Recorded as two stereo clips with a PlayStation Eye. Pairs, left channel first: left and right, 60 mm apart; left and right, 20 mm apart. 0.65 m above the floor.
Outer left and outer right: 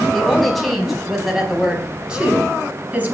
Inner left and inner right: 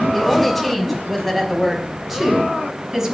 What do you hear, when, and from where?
0.1 s a woman speaking: 5° left (ahead or behind), 5 m; by 3.1 s 30° right (ahead or behind), 5.5 m